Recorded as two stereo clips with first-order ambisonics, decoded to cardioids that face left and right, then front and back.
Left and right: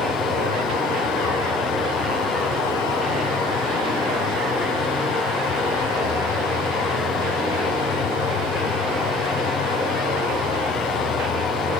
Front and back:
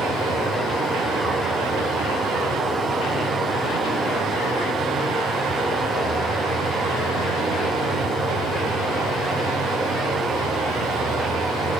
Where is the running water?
110° left, 1.1 m.